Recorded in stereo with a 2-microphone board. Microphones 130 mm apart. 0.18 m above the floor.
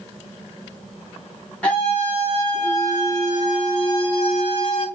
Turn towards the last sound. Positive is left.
turn(degrees=50)  # may be behind; listen again after turning